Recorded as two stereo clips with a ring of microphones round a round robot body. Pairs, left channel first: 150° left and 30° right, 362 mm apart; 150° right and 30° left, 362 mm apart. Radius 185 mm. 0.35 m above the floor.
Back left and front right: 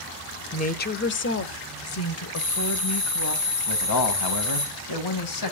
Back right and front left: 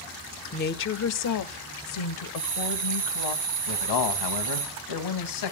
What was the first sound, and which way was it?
A woman speaking, 175° right.